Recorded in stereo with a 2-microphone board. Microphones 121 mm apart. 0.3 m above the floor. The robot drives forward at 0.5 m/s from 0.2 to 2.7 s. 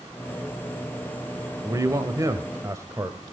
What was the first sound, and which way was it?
A man speaking, 30° right (ahead or behind).